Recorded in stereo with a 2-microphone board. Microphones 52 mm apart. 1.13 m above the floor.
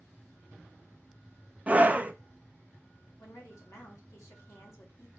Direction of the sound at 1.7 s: 30° right (ahead or behind).